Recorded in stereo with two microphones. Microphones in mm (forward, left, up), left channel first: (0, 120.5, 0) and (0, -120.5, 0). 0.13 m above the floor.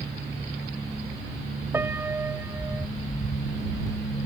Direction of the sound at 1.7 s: 10° right (ahead or behind).